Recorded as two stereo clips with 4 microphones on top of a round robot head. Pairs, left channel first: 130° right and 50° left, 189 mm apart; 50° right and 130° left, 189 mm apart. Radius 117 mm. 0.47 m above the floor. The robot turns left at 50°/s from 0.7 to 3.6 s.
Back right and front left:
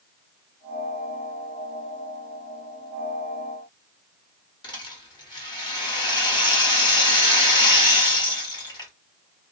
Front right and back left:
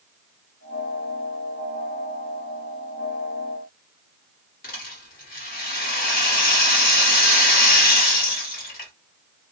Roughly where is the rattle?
Ahead right.